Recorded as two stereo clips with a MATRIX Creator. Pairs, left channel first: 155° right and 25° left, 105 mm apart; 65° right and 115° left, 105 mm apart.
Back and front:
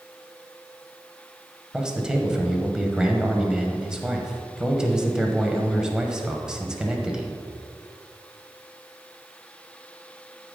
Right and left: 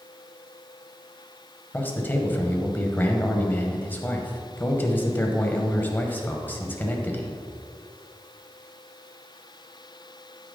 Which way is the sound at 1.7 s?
45° right.